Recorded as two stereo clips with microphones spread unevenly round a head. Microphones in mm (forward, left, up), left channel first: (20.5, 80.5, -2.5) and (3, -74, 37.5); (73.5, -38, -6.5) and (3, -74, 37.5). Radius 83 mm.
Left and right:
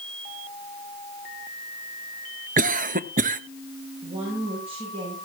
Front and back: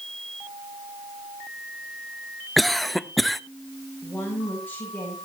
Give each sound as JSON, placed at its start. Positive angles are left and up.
{"t": 2.6, "sound": "a cough", "azimuth_deg": -55, "distance_m": 0.8}
{"t": 4.0, "sound": "a woman speaking", "azimuth_deg": -45, "distance_m": 7.5}